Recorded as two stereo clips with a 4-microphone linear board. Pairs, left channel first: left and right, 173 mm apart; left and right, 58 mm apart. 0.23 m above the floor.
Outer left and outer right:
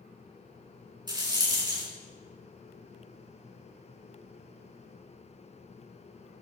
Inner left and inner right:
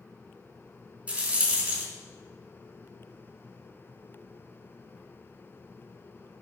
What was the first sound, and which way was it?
A rattle, 25° right (ahead or behind).